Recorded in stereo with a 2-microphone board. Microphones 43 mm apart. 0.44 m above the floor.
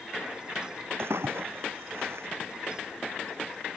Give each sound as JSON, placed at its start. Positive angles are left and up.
{"t": 1.0, "sound": "a splash", "side_deg": -75}